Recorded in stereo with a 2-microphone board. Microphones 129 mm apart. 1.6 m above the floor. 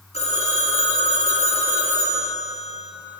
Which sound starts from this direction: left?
A phone ringing, at 0.1 s.